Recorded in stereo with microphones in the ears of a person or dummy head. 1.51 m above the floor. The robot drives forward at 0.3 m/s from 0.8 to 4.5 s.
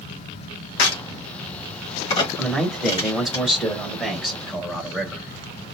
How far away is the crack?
About 1.1 m.